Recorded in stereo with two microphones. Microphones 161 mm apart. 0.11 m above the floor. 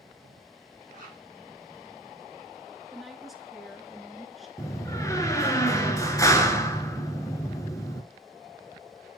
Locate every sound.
0.9 s a zipper: 50° right (ahead or behind), 5 m
2.9 s a woman speaking: centre (ahead or behind), 1.1 m
4.6 s a door slam: 20° left (ahead or behind), 1.0 m